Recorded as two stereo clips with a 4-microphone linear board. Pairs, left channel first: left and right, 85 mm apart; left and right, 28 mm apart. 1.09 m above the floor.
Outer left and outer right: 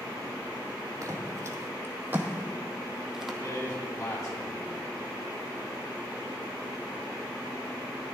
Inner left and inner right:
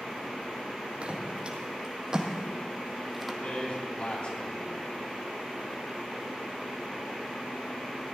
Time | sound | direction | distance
1.0 | footsteps | 40° right (ahead or behind) | 1.9 m
3.4 | a man speaking | 55° left (ahead or behind) | 4 m